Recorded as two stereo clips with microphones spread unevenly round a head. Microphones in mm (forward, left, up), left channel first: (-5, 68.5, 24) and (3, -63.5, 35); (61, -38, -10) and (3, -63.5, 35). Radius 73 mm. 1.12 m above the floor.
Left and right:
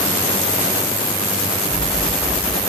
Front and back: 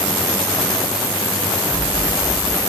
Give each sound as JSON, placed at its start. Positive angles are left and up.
{"t": 1.7, "sound": "an explosion", "azimuth_deg": -170, "distance_m": 4.5}